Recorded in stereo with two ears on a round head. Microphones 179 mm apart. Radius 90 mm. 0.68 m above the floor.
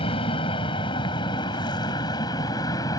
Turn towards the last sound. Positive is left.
turn(degrees=15)  # may be behind; listen again after turning